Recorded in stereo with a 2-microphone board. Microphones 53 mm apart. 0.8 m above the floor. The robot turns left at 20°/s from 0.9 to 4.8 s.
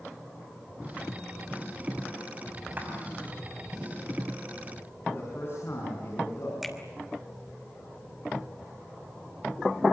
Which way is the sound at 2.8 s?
35° right (ahead or behind).